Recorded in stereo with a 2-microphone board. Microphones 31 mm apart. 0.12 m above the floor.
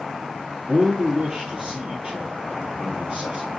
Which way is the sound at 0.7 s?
20° right (ahead or behind).